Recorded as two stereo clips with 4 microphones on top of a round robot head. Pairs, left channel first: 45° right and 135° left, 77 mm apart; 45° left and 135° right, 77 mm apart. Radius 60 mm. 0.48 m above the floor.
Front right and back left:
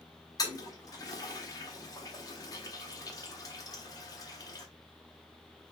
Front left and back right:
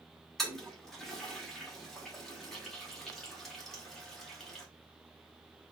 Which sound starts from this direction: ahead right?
A toilet flushing, at 0.4 s.